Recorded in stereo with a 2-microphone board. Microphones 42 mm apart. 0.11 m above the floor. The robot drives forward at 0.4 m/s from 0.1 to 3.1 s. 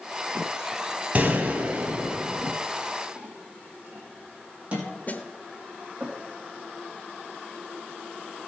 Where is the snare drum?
40° left (ahead or behind), 1.1 m.